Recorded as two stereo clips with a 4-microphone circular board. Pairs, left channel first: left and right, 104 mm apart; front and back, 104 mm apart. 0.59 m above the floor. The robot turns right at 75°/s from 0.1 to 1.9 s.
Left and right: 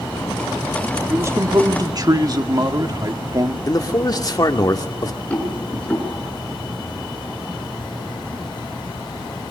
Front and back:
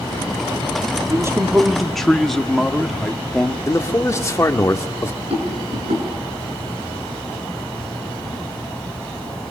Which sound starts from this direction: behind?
A rattle, at 5.3 s.